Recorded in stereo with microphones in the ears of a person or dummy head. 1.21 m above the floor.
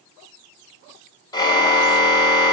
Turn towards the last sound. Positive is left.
turn(degrees=25)  # may be behind; listen again after turning